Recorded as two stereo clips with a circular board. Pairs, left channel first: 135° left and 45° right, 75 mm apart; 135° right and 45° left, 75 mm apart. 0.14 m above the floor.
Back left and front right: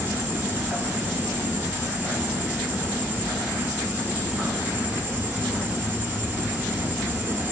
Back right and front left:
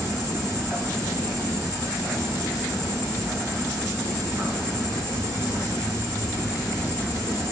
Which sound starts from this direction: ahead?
An insect, at 0.0 s.